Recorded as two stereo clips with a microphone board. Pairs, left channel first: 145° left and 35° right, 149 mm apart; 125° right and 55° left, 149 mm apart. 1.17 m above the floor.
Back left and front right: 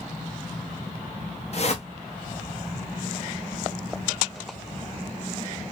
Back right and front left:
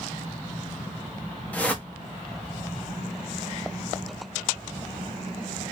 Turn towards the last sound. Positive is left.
turn(degrees=160)